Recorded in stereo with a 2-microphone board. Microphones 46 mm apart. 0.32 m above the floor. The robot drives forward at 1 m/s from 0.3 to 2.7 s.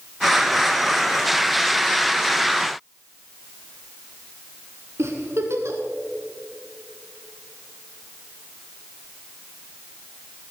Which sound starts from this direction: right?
A giggle, at 5.0 s.